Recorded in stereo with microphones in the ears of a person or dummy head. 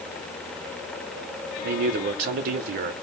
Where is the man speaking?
50° right (ahead or behind), 0.6 m.